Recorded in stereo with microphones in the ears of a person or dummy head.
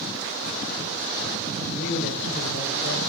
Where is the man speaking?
65° left (ahead or behind), 4 m.